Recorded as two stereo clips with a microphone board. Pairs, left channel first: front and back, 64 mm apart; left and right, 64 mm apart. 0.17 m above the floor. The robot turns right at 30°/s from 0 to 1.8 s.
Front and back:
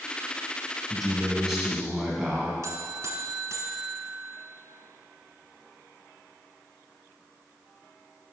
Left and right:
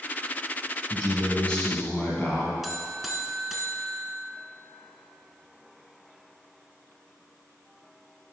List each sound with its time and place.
0.9 s a man speaking: 75° left, 1.1 m; by 2.5 s 100° left, 1.1 m
2.6 s a buzzer: 175° right, 0.9 m